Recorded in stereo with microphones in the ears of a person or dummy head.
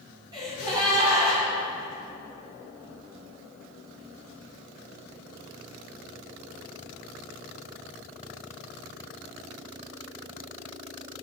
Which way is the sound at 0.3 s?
25° right (ahead or behind).